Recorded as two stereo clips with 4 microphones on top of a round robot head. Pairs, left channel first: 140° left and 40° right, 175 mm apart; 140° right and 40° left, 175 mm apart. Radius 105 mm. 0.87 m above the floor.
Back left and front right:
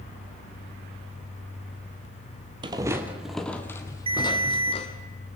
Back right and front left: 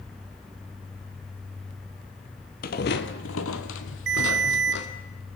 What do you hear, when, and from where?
2.6 s footsteps: 105° right, 1.3 m; by 4.9 s 165° right, 2.5 m
4.1 s a ringtone: 20° left, 2 m